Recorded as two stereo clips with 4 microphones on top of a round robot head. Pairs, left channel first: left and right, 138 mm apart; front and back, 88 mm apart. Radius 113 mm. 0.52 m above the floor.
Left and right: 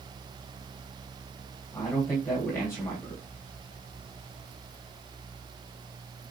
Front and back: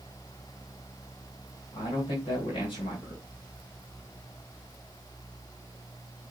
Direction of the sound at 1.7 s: 20° left.